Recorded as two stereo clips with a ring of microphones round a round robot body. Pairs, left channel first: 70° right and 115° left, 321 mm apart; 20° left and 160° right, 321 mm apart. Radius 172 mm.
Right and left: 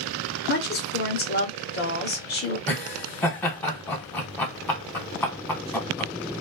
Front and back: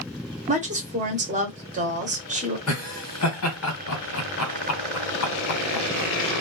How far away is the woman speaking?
About 1.0 m.